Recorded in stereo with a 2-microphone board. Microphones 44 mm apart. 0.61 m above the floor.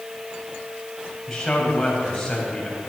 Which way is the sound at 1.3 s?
10° left (ahead or behind).